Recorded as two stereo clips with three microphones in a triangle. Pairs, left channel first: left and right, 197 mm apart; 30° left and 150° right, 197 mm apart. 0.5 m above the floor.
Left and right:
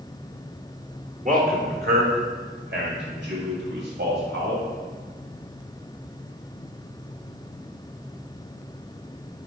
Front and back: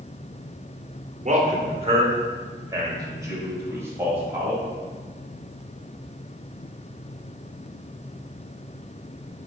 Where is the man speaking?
115° right, 1.1 m; by 4.6 s 70° right, 3 m.